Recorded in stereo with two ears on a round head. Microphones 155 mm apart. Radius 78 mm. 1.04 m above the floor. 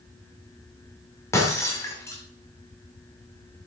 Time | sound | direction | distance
1.3 | breaking glass | 15° left (ahead or behind) | 2 m